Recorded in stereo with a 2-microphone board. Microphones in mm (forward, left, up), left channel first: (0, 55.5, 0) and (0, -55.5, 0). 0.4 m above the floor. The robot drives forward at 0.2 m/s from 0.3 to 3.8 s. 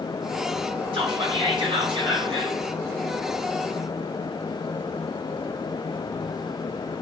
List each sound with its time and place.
0.9 s whispering: 50° right (ahead or behind), 3.5 m; by 2.6 s 45° right (ahead or behind), 3.5 m